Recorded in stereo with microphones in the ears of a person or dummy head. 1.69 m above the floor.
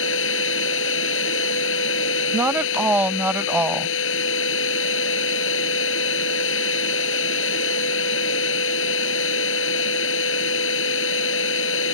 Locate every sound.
0.0 s a machine running: 75° left (ahead or behind)
2.3 s a woman speaking: 5° right (ahead or behind)